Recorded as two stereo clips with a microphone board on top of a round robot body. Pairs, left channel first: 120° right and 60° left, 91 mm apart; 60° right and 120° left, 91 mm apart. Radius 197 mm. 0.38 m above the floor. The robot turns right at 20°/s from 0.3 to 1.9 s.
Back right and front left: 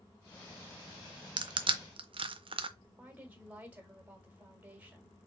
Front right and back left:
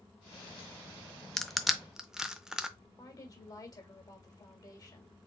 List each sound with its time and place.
1.4 s crushing: 25° left, 0.5 m; by 2.7 s 35° left, 0.5 m
2.8 s a woman speaking: 15° right, 2.0 m